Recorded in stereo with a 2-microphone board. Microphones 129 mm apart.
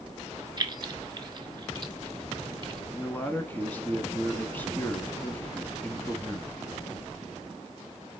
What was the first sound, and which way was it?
Keys jangling, 35° right (ahead or behind).